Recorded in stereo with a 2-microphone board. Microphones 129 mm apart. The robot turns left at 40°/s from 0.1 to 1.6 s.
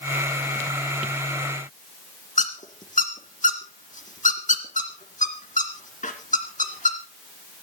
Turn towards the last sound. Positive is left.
turn(degrees=75)  # may be behind; listen again after turning